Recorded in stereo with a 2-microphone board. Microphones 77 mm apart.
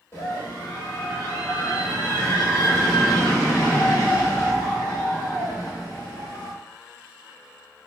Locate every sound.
0.1 s a scream: 35° left (ahead or behind), 1.3 m; by 6.5 s 25° left (ahead or behind), 5.5 m